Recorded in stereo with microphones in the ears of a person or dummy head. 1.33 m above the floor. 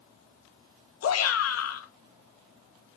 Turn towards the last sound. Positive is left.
turn(degrees=80)